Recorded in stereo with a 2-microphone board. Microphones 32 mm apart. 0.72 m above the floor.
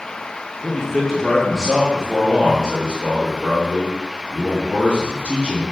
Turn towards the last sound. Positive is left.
turn(degrees=-70)  # may be behind; listen again after turning